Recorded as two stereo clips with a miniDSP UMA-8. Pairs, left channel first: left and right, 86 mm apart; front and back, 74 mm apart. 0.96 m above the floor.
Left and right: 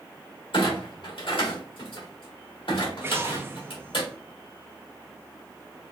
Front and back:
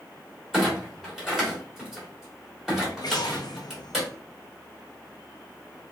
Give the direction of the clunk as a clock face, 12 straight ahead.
9 o'clock.